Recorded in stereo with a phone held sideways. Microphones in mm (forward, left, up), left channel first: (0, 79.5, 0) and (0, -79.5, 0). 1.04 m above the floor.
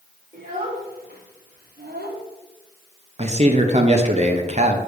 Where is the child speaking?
60° right (ahead or behind), 3 m; by 2.2 s 85° right, 1.6 m.